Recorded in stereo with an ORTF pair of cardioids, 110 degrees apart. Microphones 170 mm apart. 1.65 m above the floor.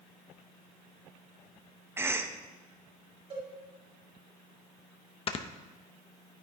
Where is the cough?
15° right, 1.0 m.